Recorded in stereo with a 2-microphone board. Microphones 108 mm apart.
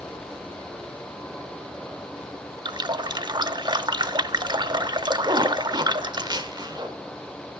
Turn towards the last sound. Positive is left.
turn(degrees=-40)  # may be behind; listen again after turning